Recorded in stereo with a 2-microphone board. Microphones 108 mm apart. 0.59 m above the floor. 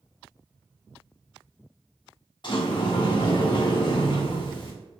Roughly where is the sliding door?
Left.